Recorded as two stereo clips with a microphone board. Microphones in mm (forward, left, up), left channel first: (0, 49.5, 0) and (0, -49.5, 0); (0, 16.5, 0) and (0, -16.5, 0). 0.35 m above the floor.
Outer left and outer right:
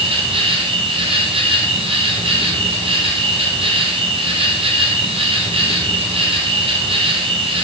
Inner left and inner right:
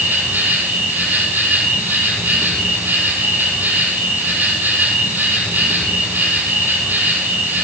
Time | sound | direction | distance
0.0 | an insect | 80° right | 5 m